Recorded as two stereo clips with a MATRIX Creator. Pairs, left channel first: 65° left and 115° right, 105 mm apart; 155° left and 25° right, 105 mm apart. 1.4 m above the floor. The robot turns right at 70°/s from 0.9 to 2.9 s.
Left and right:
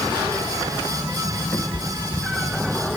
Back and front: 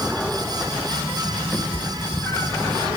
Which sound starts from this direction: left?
A cat meowing, at 1.5 s.